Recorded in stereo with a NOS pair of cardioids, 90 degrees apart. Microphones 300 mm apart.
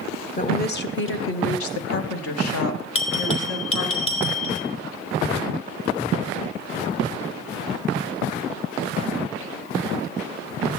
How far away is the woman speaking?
About 1.4 m.